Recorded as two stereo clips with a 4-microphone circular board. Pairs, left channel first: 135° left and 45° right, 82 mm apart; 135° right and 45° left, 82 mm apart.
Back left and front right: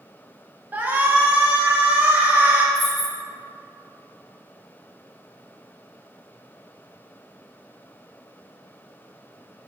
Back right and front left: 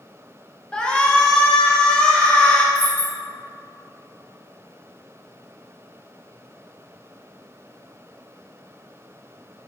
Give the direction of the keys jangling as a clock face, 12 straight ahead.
11 o'clock.